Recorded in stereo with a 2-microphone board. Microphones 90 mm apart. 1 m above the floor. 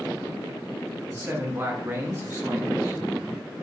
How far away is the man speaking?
About 0.9 m.